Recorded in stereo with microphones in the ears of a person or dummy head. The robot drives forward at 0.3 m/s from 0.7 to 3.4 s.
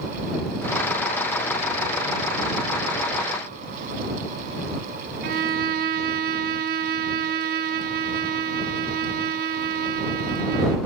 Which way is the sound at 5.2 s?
45° right (ahead or behind).